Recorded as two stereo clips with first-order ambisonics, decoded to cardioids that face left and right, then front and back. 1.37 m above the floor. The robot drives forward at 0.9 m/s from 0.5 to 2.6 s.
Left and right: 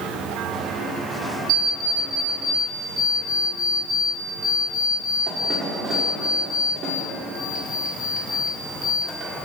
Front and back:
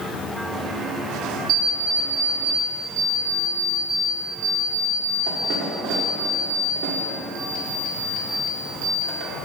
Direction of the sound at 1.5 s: 140° right.